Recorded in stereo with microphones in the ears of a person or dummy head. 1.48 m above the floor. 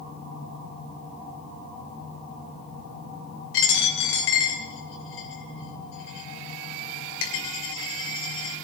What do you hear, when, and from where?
3.5 s a dropped coin: 70° left (ahead or behind), 2.5 m